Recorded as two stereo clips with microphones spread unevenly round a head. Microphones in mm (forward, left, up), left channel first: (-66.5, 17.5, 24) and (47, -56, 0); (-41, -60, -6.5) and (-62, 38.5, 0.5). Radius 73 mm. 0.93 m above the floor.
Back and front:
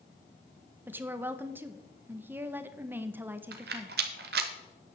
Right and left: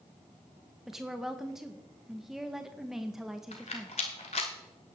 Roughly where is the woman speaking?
Ahead.